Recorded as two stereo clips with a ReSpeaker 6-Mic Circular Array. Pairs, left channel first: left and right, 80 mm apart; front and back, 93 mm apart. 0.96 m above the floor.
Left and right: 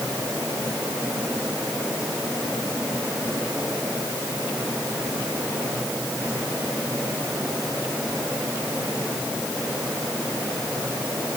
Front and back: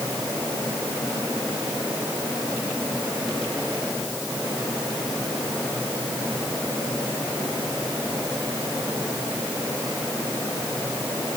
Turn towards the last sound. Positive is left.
No sound to turn to.